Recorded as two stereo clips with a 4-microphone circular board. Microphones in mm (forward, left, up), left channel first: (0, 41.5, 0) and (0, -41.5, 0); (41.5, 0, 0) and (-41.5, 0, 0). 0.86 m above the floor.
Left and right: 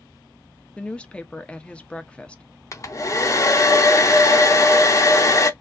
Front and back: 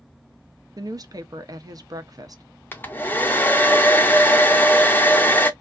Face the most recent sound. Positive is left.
turn(degrees=55)